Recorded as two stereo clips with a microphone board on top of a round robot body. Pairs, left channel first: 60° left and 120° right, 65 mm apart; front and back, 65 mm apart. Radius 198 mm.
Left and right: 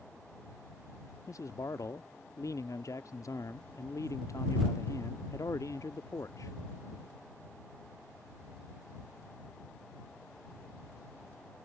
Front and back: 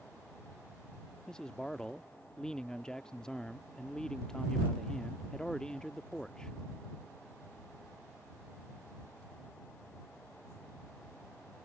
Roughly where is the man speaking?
Left.